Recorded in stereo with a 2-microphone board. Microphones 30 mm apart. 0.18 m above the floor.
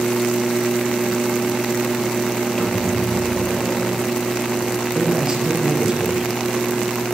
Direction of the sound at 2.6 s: 25° left (ahead or behind).